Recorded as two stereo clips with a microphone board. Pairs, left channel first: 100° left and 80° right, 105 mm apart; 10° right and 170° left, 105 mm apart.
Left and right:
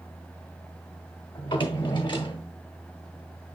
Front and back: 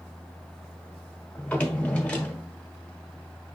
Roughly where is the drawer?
Ahead left.